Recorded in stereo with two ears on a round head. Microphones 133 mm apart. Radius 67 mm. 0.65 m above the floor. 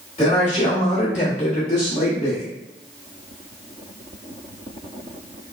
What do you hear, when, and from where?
0.2 s a man speaking: 30° left (ahead or behind), 1.9 m; by 2.5 s 45° left (ahead or behind), 1.3 m